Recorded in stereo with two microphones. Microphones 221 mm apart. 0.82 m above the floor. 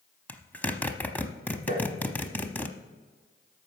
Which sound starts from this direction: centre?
A zipper, at 0.3 s.